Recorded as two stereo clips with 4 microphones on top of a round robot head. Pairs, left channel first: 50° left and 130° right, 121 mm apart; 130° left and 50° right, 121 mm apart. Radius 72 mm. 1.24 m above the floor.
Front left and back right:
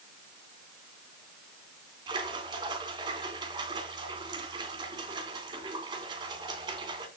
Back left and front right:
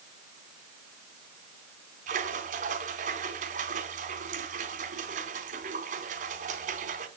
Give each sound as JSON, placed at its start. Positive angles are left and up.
{"t": 2.1, "sound": "a splash", "azimuth_deg": -70, "distance_m": 2.5}